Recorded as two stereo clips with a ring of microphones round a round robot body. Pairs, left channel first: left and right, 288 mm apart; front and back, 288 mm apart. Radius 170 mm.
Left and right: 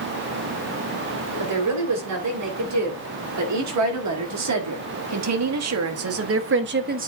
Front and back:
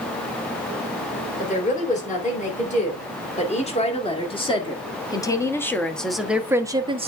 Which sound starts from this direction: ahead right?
A woman speaking, at 1.4 s.